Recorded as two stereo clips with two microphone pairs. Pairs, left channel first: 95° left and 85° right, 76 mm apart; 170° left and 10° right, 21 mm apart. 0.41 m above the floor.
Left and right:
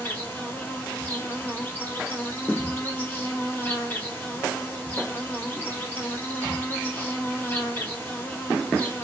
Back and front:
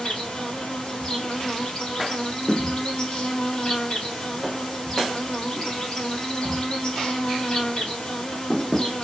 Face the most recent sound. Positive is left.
turn(degrees=145)